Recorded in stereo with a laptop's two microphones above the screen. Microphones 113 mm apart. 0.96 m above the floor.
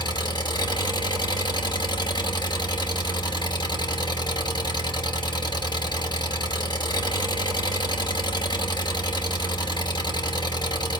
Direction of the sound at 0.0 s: 40° left (ahead or behind).